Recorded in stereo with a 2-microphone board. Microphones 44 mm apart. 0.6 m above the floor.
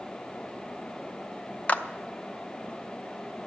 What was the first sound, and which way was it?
A clap, 35° left (ahead or behind).